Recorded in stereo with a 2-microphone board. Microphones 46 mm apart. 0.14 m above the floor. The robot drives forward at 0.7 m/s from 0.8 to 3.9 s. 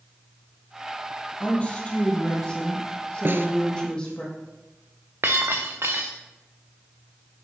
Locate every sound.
1.4 s a woman speaking: 30° left (ahead or behind), 3 m; by 4.2 s 20° left (ahead or behind), 4.5 m
3.2 s a snare drum: 50° right (ahead or behind), 1.1 m; by 3.5 s 55° right (ahead or behind), 1.0 m
5.2 s breaking glass: 55° right (ahead or behind), 1.5 m